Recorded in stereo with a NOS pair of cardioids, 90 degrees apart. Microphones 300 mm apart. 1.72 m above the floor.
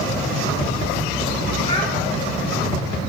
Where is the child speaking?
20° left, 1.8 m.